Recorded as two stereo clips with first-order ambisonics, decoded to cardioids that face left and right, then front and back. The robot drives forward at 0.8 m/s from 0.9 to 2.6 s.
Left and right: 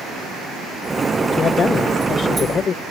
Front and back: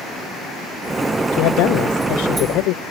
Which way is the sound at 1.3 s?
20° left.